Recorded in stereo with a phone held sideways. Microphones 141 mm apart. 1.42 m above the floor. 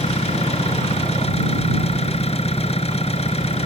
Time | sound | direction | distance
0.0 | an engine running | 45° left (ahead or behind) | ?